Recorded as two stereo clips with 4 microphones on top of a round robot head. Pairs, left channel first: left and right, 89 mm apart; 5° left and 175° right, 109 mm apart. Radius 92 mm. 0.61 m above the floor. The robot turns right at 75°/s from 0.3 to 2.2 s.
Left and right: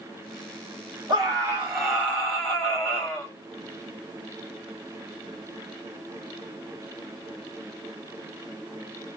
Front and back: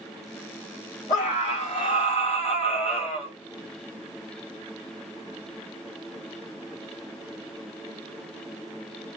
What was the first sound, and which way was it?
A scream, 55° right.